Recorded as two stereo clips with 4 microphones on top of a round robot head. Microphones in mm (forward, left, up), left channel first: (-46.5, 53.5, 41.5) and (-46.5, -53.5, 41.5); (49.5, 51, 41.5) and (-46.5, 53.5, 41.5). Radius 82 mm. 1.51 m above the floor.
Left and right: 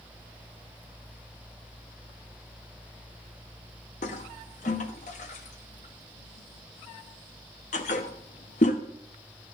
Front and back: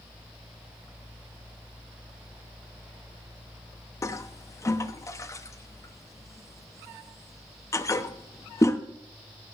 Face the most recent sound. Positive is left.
turn(degrees=60)